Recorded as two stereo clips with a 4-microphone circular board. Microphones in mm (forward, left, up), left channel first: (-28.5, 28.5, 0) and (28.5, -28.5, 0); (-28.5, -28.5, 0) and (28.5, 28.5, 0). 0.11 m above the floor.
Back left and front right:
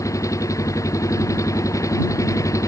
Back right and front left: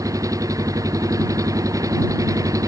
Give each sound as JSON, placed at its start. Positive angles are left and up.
{"t": 0.0, "sound": "an engine running", "azimuth_deg": 90}